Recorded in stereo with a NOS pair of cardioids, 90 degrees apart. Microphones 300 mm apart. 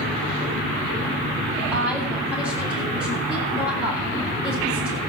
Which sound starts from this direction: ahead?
A woman speaking, at 1.7 s.